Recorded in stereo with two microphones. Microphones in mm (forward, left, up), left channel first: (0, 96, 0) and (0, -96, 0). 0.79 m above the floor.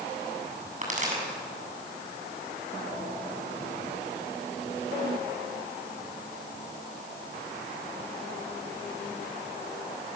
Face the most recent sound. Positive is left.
turn(degrees=-40)  # may be behind; listen again after turning